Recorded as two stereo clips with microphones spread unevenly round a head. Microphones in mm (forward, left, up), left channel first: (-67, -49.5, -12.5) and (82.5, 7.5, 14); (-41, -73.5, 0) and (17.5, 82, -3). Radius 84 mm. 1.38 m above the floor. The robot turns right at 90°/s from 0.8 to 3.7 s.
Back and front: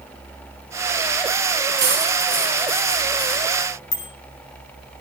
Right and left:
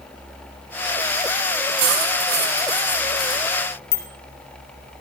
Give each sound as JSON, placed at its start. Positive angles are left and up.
{"t": 1.8, "sound": "cutlery clinking", "azimuth_deg": 45, "distance_m": 6.5}
{"t": 3.9, "sound": "a bicycle bell", "azimuth_deg": -155, "distance_m": 5.0}